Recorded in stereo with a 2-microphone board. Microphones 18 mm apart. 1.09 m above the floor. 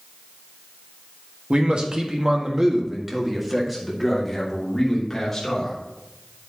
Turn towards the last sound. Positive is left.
turn(degrees=15)  # may be behind; listen again after turning